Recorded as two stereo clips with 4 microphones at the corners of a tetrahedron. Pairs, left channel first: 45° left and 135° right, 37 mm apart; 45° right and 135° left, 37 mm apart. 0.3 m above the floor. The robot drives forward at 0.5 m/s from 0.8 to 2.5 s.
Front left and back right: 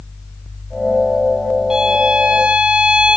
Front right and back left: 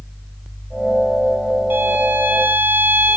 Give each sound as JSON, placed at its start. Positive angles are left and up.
{"t": 1.7, "sound": "a violin", "azimuth_deg": 150, "distance_m": 1.0}